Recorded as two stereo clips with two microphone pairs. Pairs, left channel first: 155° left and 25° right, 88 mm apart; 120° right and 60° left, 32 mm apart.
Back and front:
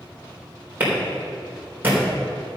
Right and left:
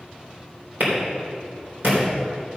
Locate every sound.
0.8 s a clap: 45° left, 3.5 m